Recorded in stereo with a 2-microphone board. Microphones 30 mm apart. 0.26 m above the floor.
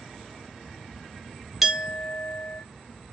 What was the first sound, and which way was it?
A clink, 10° right (ahead or behind).